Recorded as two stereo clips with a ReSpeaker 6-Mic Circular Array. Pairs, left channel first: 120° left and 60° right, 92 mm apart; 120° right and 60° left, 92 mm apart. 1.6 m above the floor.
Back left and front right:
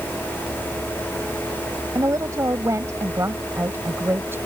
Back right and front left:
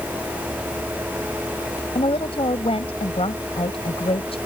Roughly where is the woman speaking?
Behind right.